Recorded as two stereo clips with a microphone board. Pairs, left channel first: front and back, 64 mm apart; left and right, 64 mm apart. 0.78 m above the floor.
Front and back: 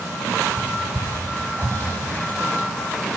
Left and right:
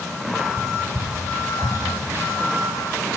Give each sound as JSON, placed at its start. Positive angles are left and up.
{"t": 0.6, "sound": "whispering", "azimuth_deg": -55, "distance_m": 3.0}